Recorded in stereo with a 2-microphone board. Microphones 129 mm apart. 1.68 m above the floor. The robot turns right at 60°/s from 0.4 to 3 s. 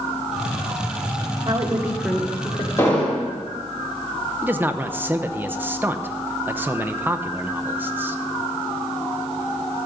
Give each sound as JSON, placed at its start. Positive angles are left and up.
{"t": 1.4, "sound": "a woman speaking", "azimuth_deg": -35, "distance_m": 1.6}
{"t": 2.8, "sound": "an explosion", "side_deg": 20, "distance_m": 2.5}
{"t": 4.4, "sound": "a man speaking", "side_deg": -15, "distance_m": 0.8}